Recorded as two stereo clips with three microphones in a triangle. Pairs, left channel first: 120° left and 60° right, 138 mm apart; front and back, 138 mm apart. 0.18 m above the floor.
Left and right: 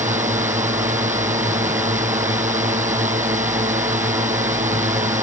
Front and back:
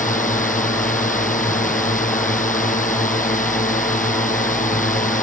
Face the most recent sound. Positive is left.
turn(degrees=-25)